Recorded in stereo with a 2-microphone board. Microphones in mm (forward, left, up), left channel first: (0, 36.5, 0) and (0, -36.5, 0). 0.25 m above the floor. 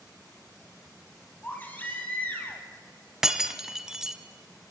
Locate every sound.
1.4 s a baby crying: 25° left (ahead or behind), 3 m
3.2 s breaking glass: 5° right (ahead or behind), 1.3 m